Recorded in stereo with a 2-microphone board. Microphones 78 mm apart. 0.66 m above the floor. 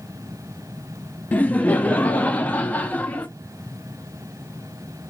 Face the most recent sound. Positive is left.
turn(degrees=20)  # may be behind; listen again after turning